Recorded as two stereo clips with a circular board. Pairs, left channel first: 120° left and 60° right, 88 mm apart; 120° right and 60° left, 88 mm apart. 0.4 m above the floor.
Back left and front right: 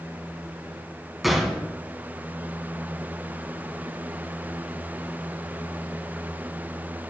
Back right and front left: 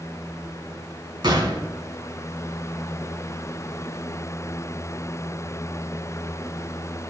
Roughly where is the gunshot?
Ahead left.